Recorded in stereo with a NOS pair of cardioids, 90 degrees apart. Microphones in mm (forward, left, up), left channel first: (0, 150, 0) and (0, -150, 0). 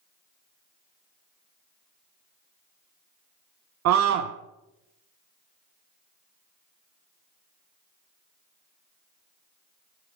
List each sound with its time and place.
3.9 s a scream: 70° right, 0.6 m